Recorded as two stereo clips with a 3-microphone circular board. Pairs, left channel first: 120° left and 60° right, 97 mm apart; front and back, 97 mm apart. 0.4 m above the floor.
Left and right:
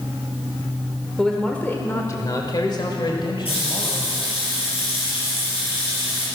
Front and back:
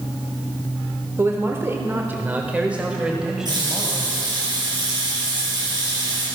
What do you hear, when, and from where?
1.2 s a man speaking: 155° right, 1.1 m; by 4.1 s 95° left, 2.5 m
3.5 s a running tap: 135° left, 6.5 m